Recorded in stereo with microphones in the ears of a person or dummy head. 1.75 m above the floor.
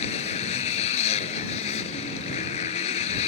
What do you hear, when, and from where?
0.0 s a motorcycle: 35° left (ahead or behind)